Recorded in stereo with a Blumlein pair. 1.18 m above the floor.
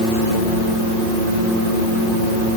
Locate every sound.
Only background noise.